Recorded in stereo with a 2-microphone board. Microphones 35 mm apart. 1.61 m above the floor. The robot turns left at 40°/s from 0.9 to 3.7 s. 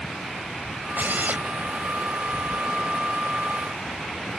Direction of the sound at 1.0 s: 70° right (ahead or behind).